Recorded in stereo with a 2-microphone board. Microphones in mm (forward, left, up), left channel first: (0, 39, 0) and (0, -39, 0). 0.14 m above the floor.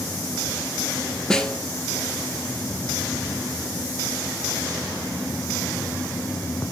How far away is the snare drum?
About 0.7 m.